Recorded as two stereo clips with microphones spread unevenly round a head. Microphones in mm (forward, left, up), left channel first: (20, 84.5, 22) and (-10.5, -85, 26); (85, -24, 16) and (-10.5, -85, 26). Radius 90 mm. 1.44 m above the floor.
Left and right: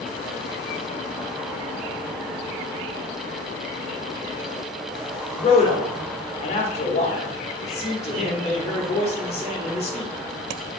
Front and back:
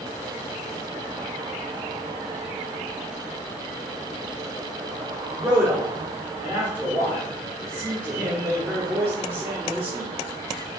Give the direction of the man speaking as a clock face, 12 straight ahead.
7 o'clock.